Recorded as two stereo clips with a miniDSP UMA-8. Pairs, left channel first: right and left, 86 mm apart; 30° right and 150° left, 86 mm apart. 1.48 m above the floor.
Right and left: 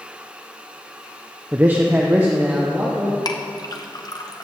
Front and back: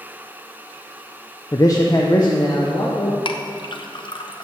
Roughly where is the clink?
Ahead right.